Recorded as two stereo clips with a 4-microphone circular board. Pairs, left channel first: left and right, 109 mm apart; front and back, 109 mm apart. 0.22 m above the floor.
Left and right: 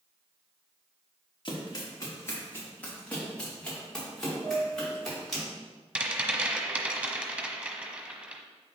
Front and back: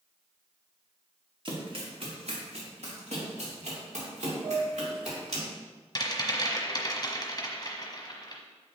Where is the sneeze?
No sneeze in this recording.